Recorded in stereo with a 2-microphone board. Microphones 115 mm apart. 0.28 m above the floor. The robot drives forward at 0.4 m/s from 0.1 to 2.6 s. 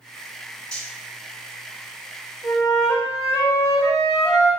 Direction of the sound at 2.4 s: Centre (ahead or behind).